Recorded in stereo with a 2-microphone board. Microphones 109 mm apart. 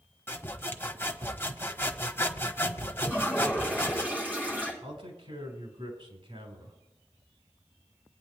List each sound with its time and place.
0.3 s sawing: 20° left (ahead or behind), 1.1 m
3.0 s a toilet flushing: 15° right (ahead or behind), 7 m
4.8 s a man speaking: 70° right (ahead or behind), 5 m